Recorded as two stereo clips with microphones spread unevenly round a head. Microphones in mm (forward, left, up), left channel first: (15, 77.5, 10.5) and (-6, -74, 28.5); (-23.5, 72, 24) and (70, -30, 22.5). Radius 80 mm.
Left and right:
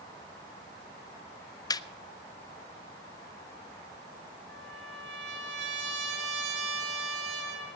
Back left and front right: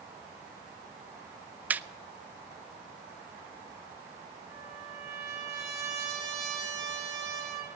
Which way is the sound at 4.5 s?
120° right.